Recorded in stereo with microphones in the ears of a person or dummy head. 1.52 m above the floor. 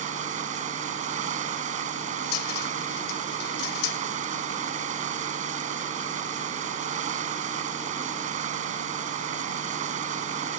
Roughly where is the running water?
Right.